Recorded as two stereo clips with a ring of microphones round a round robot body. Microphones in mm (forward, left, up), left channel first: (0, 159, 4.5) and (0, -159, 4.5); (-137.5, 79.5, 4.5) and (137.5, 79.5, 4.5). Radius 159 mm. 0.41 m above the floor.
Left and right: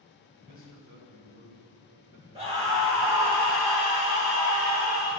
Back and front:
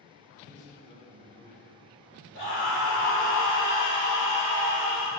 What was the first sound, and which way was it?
A man speaking, 115° right.